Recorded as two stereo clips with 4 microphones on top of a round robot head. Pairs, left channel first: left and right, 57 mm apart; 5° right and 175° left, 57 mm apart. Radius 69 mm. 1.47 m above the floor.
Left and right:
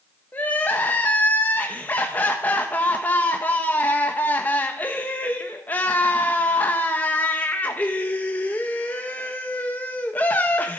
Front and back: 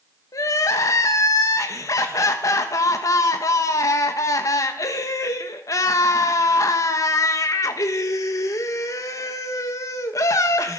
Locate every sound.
0.3 s crying: 25° left, 1.3 m